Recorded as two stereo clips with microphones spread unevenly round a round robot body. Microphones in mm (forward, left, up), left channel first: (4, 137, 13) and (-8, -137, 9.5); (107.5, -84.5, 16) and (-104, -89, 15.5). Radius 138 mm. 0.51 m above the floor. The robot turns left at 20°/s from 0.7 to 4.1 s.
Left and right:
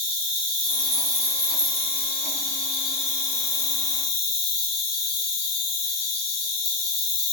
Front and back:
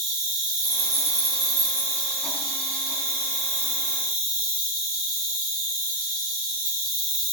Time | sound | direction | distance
0.0 | an insect | 160° right | 3 m